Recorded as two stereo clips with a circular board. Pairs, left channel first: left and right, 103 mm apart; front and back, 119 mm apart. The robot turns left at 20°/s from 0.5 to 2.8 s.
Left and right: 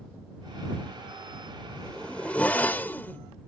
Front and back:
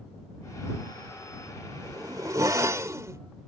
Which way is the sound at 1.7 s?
165° left.